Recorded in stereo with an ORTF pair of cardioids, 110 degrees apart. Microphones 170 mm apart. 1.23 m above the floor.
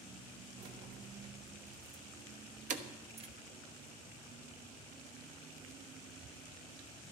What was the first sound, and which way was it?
Keys jangling, 60° right.